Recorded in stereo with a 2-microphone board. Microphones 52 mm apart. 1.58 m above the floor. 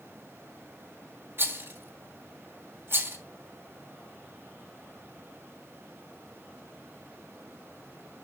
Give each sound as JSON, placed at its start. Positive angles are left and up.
{"t": 1.4, "sound": "a rattle", "side_deg": -50, "distance_m": 1.4}